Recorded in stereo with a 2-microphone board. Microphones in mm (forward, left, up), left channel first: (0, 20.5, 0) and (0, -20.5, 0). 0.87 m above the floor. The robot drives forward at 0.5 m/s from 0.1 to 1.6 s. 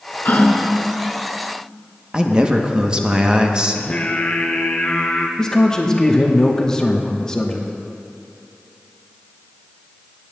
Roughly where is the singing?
Left.